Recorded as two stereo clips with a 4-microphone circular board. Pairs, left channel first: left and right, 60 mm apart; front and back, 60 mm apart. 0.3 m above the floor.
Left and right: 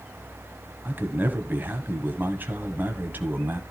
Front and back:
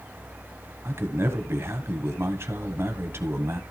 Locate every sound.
0.8 s a man speaking: 145° right, 1.6 m